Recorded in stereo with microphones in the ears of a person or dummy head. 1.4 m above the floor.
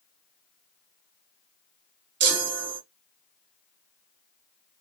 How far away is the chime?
About 0.9 m.